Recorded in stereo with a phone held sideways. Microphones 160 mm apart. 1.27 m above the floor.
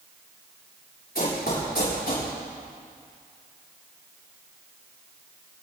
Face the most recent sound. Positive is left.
turn(degrees=70)  # may be behind; listen again after turning